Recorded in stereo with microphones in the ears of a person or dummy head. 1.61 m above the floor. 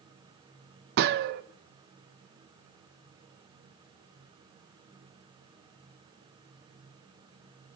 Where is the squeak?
No squeak in this recording.